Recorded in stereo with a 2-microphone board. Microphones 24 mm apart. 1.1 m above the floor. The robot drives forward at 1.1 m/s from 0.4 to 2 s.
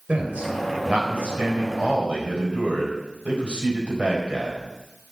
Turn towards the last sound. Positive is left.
turn(degrees=-65)  # may be behind; listen again after turning